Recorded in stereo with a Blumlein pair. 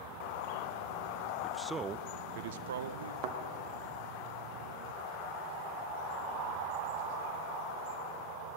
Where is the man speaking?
5° left, 0.6 m; by 3.1 s 70° right, 0.9 m.